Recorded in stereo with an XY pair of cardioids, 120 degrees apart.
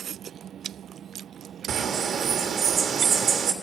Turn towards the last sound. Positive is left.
turn(degrees=-55)